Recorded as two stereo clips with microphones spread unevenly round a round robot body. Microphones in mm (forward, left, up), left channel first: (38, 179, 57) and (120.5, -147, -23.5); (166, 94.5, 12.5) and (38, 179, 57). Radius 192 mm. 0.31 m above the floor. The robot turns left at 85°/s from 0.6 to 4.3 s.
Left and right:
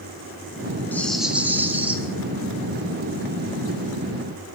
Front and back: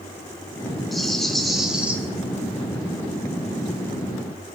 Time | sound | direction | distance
0.9 | a rattle | 10° right | 1.2 m